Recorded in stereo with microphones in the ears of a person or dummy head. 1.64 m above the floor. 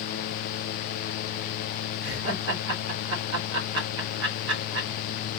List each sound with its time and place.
2.0 s laughter: 70° right (ahead or behind), 2 m